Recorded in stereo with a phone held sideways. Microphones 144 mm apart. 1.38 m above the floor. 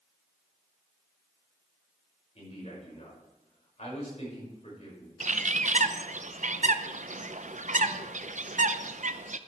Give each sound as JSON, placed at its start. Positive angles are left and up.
{"t": 2.4, "sound": "a man speaking", "side_deg": 50, "distance_m": 5.5}
{"t": 5.2, "sound": "a bird", "side_deg": -60, "distance_m": 0.5}